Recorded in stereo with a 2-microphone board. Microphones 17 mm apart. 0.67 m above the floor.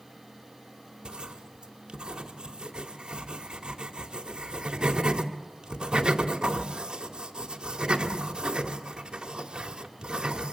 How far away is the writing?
About 2 m.